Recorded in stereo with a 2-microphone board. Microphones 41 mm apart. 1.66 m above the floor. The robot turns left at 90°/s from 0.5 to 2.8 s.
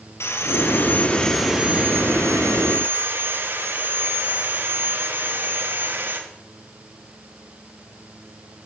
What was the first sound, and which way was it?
Sawing, 80° left.